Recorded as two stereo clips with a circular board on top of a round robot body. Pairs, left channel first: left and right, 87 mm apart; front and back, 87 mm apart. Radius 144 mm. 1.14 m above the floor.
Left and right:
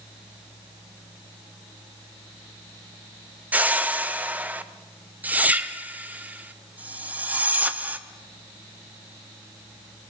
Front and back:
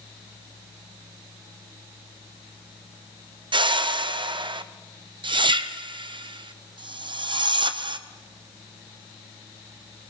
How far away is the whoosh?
About 0.7 m.